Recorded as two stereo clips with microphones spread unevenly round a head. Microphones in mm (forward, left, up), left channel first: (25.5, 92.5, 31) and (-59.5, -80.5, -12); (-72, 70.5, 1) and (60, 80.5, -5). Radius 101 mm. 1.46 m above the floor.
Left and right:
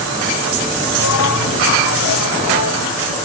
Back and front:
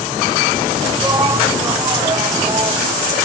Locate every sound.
1.0 s a shout: 65° left; by 2.9 s 60° left